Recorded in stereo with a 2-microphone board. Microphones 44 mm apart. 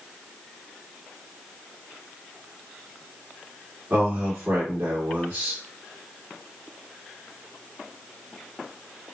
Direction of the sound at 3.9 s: 70° right (ahead or behind).